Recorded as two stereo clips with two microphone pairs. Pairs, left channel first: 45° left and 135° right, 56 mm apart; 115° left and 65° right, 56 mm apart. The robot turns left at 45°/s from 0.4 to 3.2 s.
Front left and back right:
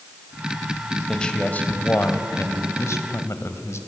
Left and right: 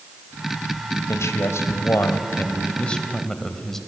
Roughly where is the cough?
I don't hear a cough.